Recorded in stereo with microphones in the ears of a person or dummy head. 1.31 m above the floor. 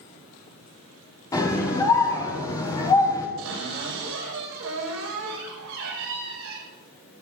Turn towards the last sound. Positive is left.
turn(degrees=-85)